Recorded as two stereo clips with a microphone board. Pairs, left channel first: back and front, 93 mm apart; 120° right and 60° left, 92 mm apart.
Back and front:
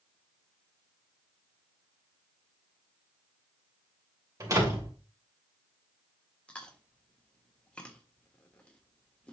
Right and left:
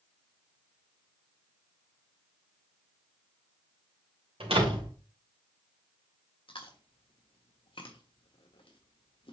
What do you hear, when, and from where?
4.4 s a door slam: 55° left, 2.5 m
6.5 s chewing: 100° right, 1.5 m